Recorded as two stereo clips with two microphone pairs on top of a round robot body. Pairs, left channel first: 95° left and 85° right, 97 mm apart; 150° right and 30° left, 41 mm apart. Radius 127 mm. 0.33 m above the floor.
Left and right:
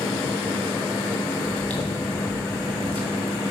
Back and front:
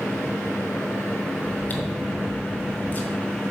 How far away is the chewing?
About 2.5 m.